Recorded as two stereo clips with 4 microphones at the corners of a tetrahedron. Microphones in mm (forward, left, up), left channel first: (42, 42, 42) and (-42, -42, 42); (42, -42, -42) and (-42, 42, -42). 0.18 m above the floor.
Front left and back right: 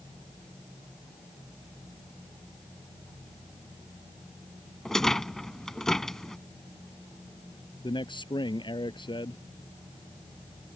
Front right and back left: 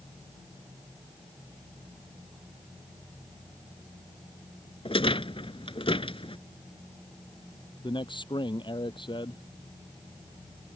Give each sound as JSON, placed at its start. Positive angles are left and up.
{"t": 4.8, "sound": "a rattle", "azimuth_deg": -40}
{"t": 7.8, "sound": "a man speaking", "azimuth_deg": 0}